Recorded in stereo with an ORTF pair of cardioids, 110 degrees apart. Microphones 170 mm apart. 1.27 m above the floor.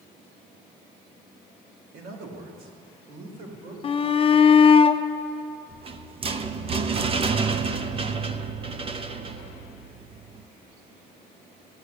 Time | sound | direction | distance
1.9 | a man speaking | 65° right | 2.5 m
3.8 | a shout | 35° left | 0.8 m
5.7 | a rattle | 35° right | 0.8 m